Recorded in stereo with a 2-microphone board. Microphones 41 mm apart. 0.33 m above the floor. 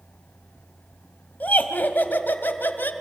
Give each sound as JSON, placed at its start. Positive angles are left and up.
{"t": 1.4, "sound": "laughter", "side_deg": 45, "distance_m": 2.0}